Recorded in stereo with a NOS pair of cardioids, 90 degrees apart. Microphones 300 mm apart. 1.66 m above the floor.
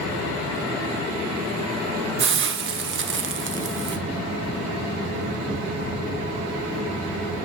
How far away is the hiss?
About 1.2 m.